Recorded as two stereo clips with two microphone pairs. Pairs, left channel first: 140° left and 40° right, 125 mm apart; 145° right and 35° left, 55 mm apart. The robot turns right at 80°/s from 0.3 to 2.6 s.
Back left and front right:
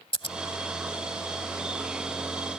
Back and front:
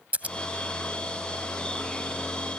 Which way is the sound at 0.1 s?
90° left.